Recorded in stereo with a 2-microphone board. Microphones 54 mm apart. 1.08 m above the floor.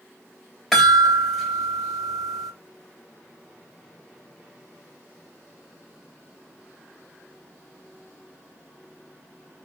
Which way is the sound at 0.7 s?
Centre (ahead or behind).